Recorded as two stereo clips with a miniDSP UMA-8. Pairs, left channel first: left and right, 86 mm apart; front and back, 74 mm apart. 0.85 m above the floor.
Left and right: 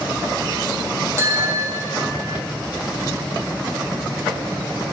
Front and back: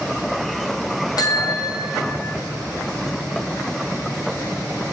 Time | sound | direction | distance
1.2 | a bicycle bell | 30° right | 5 m